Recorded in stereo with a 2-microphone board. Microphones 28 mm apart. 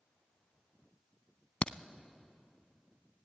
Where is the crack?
45° left (ahead or behind), 0.5 m.